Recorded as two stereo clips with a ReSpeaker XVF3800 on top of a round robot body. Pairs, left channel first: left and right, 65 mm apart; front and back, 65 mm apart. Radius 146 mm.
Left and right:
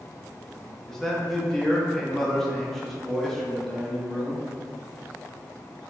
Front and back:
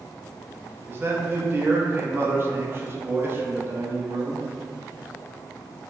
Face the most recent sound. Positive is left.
turn(degrees=170)